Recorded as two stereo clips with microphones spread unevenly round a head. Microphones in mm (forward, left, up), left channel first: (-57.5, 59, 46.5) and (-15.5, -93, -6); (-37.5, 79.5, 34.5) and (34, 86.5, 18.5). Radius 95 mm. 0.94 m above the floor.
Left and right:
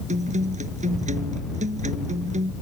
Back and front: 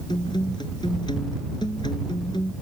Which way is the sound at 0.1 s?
115° right.